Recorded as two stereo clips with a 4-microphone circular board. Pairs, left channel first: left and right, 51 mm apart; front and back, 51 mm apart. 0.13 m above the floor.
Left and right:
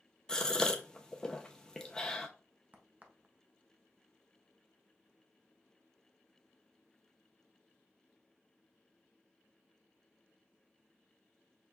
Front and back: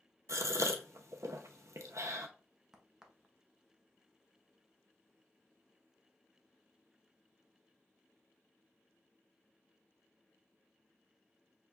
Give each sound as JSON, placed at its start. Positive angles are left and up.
{"t": 0.3, "sound": "a gasp", "azimuth_deg": 165, "distance_m": 0.6}
{"t": 2.7, "sound": "a crack", "azimuth_deg": -110, "distance_m": 0.7}